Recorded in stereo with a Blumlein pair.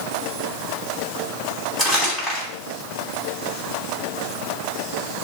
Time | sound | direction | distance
1.8 | crumpling | 10° left | 5 m